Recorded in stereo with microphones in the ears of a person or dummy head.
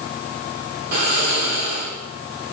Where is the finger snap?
I don't hear a finger snap.